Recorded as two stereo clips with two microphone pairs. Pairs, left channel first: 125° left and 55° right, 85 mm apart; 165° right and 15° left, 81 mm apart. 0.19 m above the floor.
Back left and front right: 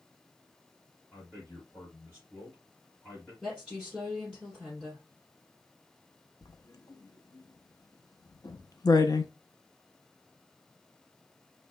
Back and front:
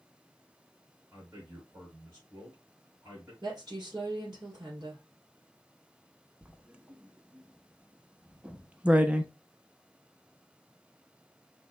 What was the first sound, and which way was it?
A man speaking, 70° left.